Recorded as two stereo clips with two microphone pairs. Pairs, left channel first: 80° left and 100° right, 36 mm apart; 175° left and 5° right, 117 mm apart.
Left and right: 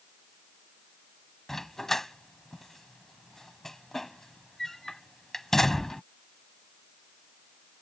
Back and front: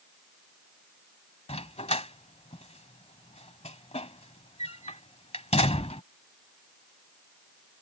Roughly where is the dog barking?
Behind left.